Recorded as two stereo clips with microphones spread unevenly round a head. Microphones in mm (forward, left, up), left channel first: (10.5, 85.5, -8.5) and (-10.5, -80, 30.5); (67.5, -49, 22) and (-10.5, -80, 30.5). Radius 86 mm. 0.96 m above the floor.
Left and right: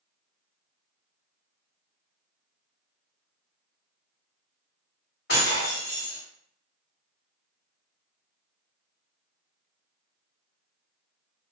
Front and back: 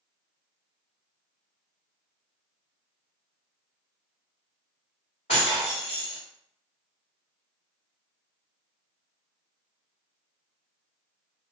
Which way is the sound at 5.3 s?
45° left.